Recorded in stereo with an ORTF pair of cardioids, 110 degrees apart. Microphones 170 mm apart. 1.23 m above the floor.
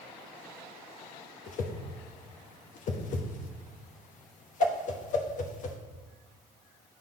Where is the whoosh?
55° left, 1.0 m.